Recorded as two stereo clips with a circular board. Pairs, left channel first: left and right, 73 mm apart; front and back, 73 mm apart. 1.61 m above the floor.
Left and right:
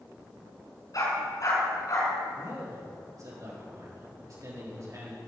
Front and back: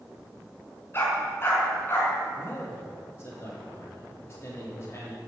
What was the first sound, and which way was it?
A dog barking, 55° left.